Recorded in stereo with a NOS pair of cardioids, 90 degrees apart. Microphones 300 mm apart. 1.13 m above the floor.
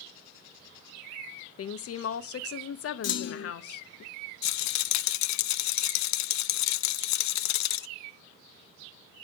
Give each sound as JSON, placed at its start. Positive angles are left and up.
{"t": 1.6, "sound": "a woman speaking", "azimuth_deg": 50, "distance_m": 0.8}
{"t": 3.0, "sound": "a clunk", "azimuth_deg": 55, "distance_m": 0.9}
{"t": 4.4, "sound": "a rattle", "azimuth_deg": 70, "distance_m": 0.5}